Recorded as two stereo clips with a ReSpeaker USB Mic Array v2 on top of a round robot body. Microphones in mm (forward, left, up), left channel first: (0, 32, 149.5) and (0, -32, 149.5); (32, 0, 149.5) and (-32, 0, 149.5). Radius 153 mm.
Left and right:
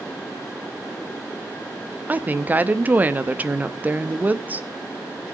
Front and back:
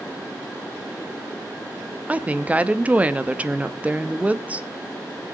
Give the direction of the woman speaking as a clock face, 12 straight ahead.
4 o'clock.